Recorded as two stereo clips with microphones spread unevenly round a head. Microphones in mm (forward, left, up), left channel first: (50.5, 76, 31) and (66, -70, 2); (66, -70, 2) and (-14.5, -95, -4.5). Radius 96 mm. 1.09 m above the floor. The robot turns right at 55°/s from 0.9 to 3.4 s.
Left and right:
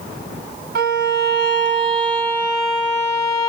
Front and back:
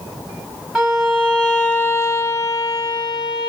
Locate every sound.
0.8 s a violin: 80° right, 1.0 m; by 3.5 s 55° left, 1.0 m